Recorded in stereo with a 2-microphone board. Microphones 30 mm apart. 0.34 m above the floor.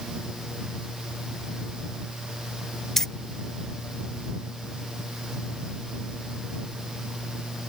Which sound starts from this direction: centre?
Keys jangling, at 3.0 s.